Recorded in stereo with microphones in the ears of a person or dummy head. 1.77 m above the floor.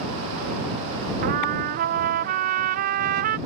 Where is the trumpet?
55° right (ahead or behind).